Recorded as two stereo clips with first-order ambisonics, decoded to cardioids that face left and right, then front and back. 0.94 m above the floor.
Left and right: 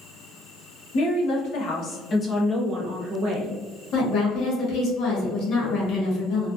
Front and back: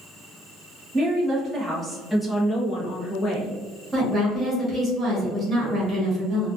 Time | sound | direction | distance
0.9 | a woman speaking | 115° left | 1.1 m
3.9 | a woman speaking | 115° left | 1.2 m